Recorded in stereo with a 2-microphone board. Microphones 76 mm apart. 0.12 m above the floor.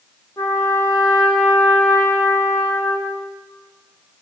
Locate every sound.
0.4 s a trumpet: 45° left (ahead or behind), 4 m